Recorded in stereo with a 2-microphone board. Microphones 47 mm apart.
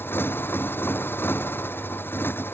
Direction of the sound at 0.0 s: 50° left (ahead or behind).